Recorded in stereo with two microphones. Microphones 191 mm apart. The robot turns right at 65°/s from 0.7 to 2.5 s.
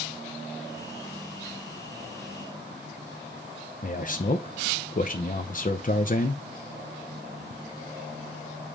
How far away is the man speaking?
About 0.7 m.